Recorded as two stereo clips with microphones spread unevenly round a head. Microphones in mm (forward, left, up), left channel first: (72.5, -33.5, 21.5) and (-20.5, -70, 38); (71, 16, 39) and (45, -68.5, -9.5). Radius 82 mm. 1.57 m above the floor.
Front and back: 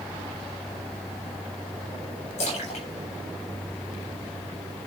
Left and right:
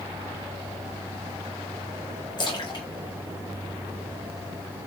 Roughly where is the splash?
Ahead left.